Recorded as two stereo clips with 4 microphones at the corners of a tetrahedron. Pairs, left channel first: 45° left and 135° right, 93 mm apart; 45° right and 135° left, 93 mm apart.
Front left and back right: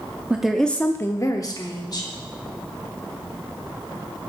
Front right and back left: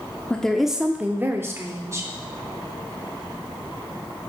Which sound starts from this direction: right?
A woman speaking, at 0.3 s.